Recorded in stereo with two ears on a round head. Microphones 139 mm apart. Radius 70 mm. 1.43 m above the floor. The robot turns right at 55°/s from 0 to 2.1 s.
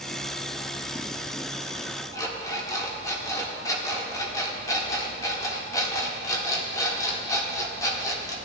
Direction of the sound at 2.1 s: 25° left (ahead or behind).